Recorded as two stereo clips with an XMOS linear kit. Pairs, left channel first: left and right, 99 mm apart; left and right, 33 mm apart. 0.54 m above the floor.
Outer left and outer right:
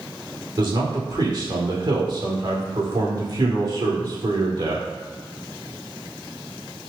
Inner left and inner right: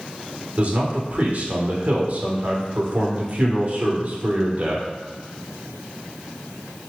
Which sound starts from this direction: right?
A man speaking, at 0.6 s.